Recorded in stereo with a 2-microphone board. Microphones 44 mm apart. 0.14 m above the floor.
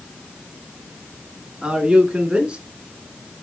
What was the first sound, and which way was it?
A man speaking, 20° right (ahead or behind).